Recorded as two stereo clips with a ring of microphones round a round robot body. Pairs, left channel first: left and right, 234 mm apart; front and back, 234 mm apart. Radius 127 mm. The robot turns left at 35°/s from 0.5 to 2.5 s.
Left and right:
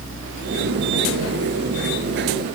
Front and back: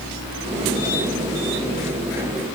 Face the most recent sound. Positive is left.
No sound to turn to.